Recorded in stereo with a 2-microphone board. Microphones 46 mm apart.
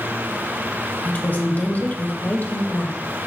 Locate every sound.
1.1 s a woman speaking: 40° left (ahead or behind), 1.8 m